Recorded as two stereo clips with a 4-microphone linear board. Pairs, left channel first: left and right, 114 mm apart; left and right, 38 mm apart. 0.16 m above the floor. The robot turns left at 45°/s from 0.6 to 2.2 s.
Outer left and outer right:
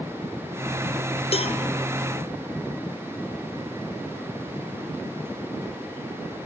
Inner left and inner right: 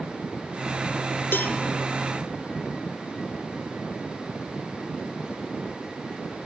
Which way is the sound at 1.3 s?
60° left (ahead or behind).